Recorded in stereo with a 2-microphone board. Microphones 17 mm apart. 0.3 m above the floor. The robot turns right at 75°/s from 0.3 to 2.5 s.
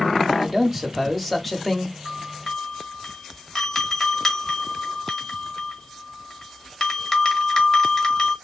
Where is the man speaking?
20° right (ahead or behind), 1.1 m; by 1.9 s 5° left (ahead or behind), 1.1 m.